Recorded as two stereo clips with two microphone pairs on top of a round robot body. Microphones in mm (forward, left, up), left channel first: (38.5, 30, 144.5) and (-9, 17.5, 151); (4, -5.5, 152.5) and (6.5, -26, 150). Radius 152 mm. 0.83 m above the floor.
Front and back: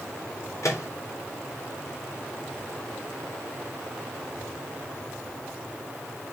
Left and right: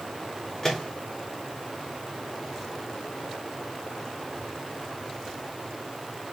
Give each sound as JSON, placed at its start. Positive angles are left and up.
{"t": 0.6, "sound": "a microwave", "azimuth_deg": 25, "distance_m": 4.0}